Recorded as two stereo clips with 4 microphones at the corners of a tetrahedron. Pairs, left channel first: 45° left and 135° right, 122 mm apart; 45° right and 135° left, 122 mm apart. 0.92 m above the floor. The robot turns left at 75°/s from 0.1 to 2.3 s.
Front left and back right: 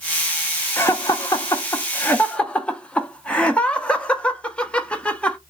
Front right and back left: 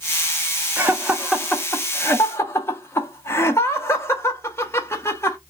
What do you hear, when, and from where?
0.8 s laughter: 90° left, 0.5 m; by 5.4 s 25° right, 0.5 m